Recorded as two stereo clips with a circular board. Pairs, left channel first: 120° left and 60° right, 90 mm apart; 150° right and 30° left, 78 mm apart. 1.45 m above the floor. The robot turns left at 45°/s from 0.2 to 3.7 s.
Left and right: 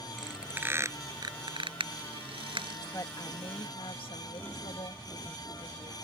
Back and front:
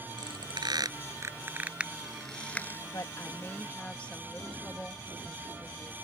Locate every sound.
0.2 s a squeak: 25° left; by 2.8 s 90° right
2.9 s a woman speaking: 170° left; by 5.9 s 135° left